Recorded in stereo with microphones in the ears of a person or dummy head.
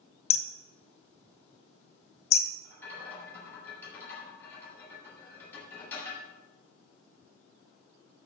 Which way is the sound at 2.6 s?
10° left (ahead or behind).